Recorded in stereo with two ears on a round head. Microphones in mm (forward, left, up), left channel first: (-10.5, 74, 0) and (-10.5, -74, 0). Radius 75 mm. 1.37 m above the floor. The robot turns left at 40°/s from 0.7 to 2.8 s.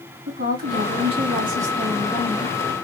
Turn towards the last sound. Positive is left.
turn(degrees=155)